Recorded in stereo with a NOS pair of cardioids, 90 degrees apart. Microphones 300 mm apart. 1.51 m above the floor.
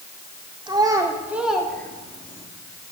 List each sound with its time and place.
0.7 s a child speaking: 15° right, 4 m; by 2.5 s 20° left, 3 m